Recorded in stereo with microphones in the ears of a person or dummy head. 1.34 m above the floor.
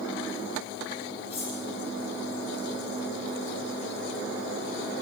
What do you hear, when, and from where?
1.3 s cutlery clinking: 25° left (ahead or behind), 6.5 m